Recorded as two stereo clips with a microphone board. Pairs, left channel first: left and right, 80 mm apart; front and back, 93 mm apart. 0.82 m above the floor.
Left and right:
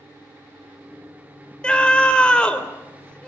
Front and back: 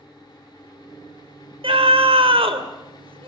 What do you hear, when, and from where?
1.6 s a scream: 170° left, 3 m